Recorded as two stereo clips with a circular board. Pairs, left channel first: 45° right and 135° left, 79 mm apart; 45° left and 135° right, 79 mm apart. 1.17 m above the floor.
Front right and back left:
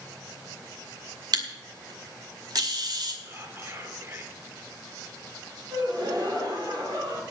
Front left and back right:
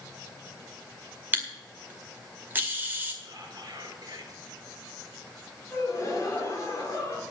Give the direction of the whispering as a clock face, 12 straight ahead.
6 o'clock.